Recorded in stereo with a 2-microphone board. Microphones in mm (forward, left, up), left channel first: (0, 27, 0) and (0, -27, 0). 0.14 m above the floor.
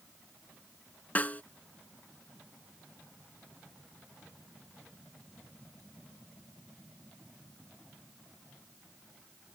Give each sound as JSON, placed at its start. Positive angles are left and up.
{"t": 1.1, "sound": "a snare drum", "side_deg": 30}